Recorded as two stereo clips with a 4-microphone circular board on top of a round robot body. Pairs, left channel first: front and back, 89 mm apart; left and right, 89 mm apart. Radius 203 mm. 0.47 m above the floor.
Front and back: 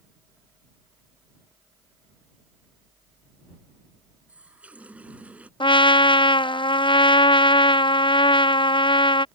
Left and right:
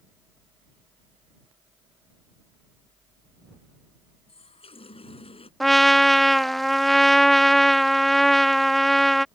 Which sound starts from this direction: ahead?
A trumpet, at 5.6 s.